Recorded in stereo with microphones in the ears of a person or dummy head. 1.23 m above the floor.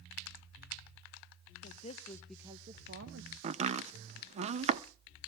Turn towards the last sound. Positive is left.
turn(degrees=-35)  # may be behind; listen again after turning